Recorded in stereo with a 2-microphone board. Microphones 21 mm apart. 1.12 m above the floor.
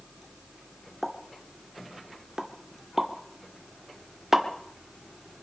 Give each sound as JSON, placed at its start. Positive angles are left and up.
{"t": 1.0, "sound": "a pop", "side_deg": -30, "distance_m": 1.7}